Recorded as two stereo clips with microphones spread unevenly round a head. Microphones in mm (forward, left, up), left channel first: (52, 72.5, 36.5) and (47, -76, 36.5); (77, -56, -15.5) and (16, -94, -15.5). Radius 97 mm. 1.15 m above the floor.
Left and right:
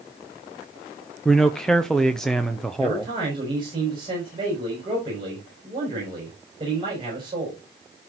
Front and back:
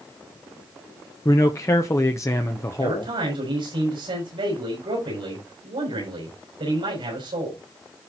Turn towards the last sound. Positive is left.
turn(degrees=-160)